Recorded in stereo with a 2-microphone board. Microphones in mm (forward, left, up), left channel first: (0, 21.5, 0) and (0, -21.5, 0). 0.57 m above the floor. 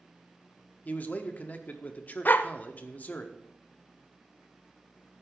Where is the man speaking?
40° left (ahead or behind), 1.0 m.